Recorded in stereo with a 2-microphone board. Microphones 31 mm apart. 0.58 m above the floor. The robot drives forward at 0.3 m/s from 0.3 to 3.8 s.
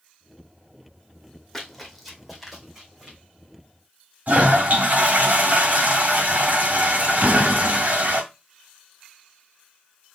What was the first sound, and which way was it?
Running footsteps, 5° left (ahead or behind).